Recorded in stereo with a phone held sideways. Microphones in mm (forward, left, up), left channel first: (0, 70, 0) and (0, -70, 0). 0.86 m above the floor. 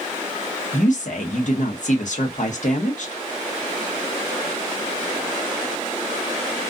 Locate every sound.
0.7 s a woman speaking: 60° left (ahead or behind), 0.9 m